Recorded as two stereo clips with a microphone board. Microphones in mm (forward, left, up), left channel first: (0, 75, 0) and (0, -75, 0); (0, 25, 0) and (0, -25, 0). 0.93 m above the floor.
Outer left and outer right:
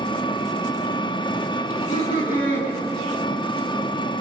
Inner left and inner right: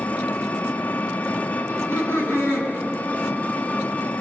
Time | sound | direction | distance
0.0 | an engine running | 30° left (ahead or behind) | 1.0 m
1.7 | laughter | 70° left (ahead or behind) | 9 m